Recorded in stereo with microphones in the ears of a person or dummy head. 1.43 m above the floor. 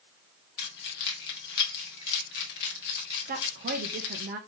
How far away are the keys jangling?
About 1.5 m.